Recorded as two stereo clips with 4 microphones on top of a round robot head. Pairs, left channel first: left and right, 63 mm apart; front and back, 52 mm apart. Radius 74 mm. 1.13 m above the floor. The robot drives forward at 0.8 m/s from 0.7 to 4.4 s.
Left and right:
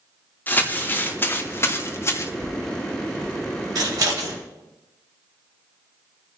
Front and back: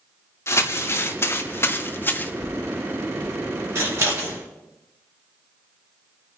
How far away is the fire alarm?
No fire alarm in this recording.